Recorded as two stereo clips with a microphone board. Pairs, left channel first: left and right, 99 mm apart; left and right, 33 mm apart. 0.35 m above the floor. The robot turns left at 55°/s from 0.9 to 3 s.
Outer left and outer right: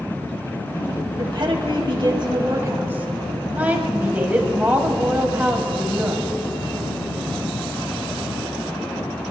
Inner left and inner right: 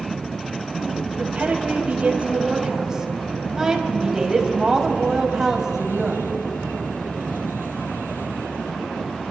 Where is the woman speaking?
60° right, 2 m; by 6.3 s 160° right, 2 m.